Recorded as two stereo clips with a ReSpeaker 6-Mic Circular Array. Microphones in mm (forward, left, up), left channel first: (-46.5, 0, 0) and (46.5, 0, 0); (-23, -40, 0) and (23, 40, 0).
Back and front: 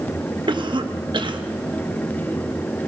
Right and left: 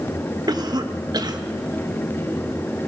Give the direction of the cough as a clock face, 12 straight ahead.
11 o'clock.